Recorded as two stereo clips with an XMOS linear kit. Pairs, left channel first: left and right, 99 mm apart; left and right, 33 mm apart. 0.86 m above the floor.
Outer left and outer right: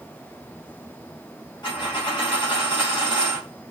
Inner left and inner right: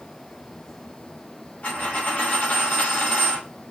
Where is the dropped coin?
50° left (ahead or behind), 2 m.